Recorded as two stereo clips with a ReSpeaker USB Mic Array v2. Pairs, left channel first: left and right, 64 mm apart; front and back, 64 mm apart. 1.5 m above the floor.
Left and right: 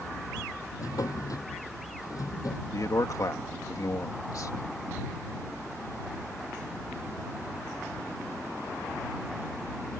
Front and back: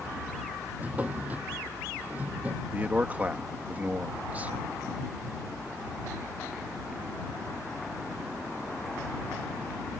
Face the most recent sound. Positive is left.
turn(degrees=115)